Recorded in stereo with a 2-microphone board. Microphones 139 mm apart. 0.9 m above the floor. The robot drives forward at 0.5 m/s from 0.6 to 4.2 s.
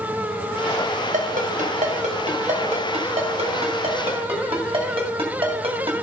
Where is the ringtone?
75° right (ahead or behind), 2 m; by 6.0 s 45° right (ahead or behind), 3 m.